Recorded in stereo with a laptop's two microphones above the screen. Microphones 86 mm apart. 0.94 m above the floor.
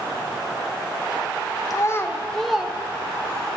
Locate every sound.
1.7 s a child speaking: 40° left (ahead or behind), 0.6 m; by 3.5 s 30° right (ahead or behind), 1.0 m